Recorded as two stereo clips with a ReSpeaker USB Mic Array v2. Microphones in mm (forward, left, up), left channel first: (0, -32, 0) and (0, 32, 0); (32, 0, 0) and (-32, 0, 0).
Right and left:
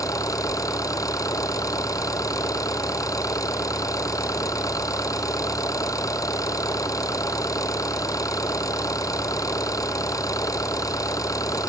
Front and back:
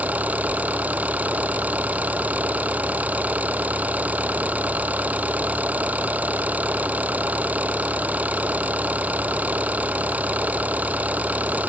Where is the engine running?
115° right.